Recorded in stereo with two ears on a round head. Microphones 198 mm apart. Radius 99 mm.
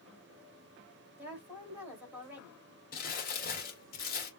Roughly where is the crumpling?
Left.